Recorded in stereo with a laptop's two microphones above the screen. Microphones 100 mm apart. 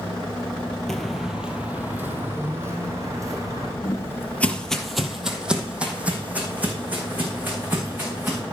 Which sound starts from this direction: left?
Footsteps, at 3.8 s.